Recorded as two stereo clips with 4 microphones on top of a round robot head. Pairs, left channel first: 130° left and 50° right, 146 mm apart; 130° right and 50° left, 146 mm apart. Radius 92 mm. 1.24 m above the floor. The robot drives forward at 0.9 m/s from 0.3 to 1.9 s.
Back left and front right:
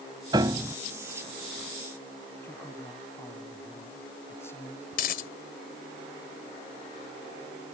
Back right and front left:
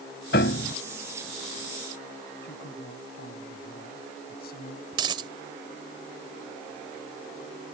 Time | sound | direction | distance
0.3 | a piano | 110° right | ?
2.4 | a man speaking | 155° right | ?
4.9 | a dropped coin | 105° left | ?